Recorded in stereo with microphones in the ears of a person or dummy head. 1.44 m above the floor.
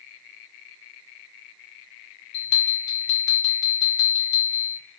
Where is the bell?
55° left (ahead or behind), 1.3 m.